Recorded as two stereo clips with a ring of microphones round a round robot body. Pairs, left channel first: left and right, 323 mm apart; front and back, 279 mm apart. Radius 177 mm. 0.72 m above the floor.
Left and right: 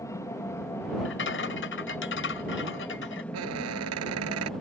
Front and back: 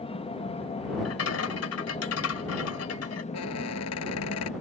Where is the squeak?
45° right.